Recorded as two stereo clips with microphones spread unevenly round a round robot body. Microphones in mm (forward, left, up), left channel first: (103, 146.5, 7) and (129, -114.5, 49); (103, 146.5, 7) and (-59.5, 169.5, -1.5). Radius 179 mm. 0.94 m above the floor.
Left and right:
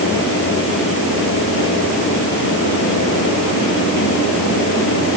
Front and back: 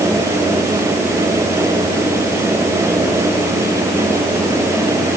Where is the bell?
No bell in this recording.